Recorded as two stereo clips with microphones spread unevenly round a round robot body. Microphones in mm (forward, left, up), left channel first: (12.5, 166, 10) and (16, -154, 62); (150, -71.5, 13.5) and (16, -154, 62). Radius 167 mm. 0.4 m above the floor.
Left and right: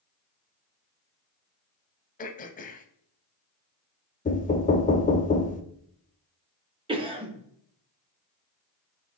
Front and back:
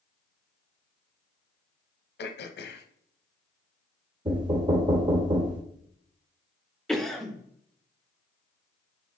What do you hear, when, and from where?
2.2 s throat clearing: 25° left, 0.6 m
4.2 s knocking: 140° left, 0.6 m
6.9 s a cough: 15° right, 1.2 m